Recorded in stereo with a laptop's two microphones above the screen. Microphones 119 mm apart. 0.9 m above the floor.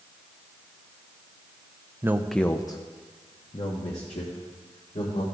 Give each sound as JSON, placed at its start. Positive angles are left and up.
{"t": 2.0, "sound": "a man speaking", "side_deg": -20, "distance_m": 0.5}